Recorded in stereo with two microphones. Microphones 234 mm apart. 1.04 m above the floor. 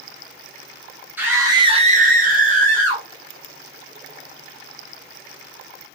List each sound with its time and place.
1.2 s a scream: 10° right (ahead or behind), 1.1 m; by 3.0 s 30° right (ahead or behind), 1.2 m